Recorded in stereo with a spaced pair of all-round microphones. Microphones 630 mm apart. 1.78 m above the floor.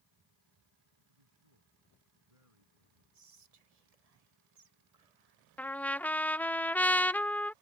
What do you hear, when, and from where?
1.1 s a man speaking: 60° right (ahead or behind)
3.1 s whispering: 70° right (ahead or behind)
5.6 s a trumpet: 5° left (ahead or behind)